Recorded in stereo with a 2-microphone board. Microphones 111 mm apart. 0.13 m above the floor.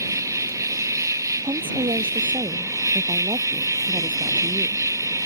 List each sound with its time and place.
0.0 s an insect: 30° right (ahead or behind)
1.4 s a woman speaking: 50° right (ahead or behind)